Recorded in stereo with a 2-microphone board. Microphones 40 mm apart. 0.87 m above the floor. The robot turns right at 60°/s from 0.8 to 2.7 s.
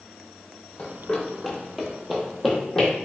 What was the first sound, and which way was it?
Running footsteps, 30° left (ahead or behind).